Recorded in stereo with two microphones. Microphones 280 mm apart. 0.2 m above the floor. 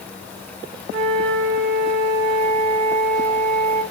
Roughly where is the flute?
Right.